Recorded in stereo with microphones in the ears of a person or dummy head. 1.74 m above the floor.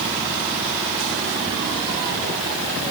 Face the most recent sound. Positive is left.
No sound to turn to.